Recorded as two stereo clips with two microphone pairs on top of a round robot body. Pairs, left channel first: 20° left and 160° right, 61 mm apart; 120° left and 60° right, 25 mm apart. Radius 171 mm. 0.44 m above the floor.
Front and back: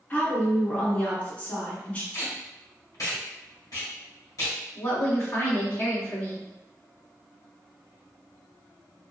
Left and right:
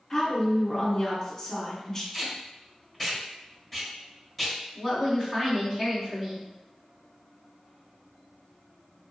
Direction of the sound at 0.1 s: 65° left.